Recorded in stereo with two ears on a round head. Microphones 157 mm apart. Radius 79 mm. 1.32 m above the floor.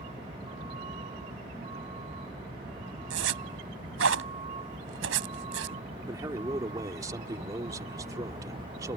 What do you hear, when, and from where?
0.0 s a vehicle: 30° right (ahead or behind)
3.1 s a zipper: 85° right
6.1 s a man speaking: 20° right (ahead or behind)